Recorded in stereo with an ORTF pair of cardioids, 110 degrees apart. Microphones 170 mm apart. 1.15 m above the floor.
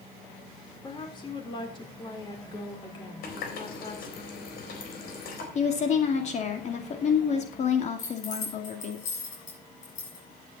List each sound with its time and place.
0.8 s a woman speaking: 30° left, 4 m
3.2 s a running tap: 70° left, 4 m
5.5 s a woman speaking: 45° left, 2.5 m
8.0 s keys jangling: 50° left, 7.5 m